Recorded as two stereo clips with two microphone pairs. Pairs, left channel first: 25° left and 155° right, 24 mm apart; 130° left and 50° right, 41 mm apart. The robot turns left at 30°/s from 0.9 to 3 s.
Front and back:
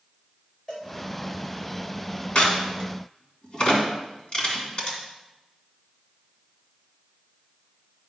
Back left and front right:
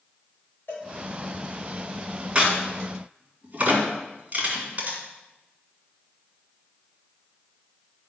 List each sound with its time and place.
0.7 s a cowbell: 95° left, 4 m
2.4 s a crack: 10° left, 2.5 m; by 5.0 s 10° right, 2.5 m